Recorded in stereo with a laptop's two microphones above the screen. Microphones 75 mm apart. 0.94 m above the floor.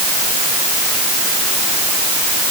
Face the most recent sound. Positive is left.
No sound to turn to.